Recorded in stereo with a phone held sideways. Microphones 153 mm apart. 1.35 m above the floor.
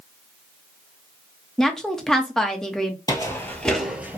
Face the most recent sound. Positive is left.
turn(degrees=-15)  # may be behind; listen again after turning